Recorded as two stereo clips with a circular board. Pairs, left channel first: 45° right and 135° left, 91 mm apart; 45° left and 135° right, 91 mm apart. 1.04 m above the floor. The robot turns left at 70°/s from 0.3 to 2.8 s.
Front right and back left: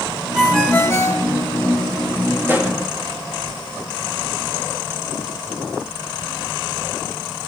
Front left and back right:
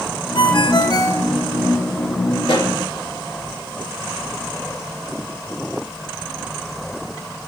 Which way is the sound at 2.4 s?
75° left.